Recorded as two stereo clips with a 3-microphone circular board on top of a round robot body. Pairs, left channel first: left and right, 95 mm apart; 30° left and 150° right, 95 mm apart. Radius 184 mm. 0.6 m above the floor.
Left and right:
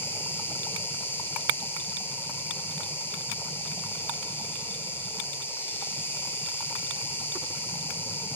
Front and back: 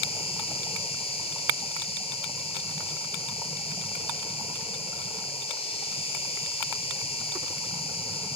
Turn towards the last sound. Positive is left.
turn(degrees=20)